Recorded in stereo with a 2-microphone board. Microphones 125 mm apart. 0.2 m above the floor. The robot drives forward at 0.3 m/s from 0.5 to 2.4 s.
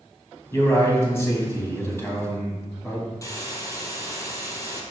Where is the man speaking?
20° left (ahead or behind), 1.7 m.